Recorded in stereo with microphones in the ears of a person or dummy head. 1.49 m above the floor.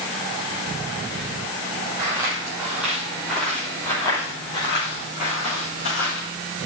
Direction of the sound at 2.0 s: 15° right (ahead or behind).